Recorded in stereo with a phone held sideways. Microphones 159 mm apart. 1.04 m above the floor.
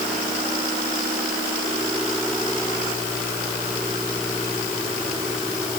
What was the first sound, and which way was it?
Only background noise.